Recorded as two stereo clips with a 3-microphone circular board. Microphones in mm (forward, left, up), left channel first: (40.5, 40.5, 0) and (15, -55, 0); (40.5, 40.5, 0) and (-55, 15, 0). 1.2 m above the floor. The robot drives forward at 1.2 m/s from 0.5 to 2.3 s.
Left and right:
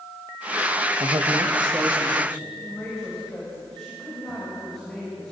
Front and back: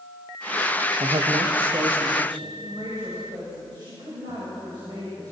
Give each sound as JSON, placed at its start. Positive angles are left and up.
{"t": 1.0, "sound": "a man speaking", "azimuth_deg": -130, "distance_m": 0.9}
{"t": 2.6, "sound": "a woman speaking", "azimuth_deg": 160, "distance_m": 6.5}